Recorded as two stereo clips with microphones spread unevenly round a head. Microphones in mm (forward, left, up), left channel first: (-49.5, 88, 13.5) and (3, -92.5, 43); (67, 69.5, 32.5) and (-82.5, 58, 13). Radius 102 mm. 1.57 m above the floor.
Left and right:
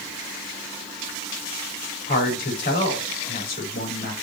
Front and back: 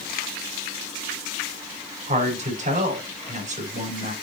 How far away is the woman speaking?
About 4.5 m.